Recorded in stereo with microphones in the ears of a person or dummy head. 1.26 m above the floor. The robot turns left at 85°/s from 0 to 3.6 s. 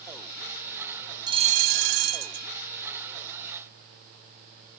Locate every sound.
1.3 s a bell: 25° right; by 2.5 s 135° right